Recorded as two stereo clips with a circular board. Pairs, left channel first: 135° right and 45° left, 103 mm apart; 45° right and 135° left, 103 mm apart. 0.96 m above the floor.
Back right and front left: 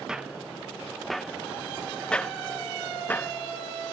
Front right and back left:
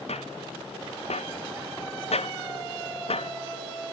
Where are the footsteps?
40° right; by 3.3 s 60° right.